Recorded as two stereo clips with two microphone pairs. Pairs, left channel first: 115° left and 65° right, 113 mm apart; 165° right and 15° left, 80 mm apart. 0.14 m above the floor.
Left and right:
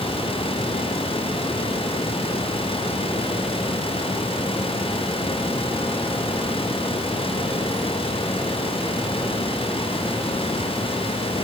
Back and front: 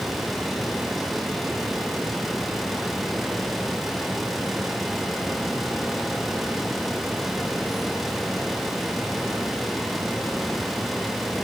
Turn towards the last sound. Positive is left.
No sound to turn to.